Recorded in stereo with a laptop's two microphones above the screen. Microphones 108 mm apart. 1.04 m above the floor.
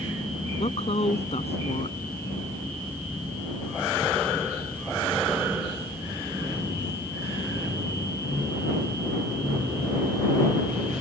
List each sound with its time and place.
0.6 s a woman speaking: 85° left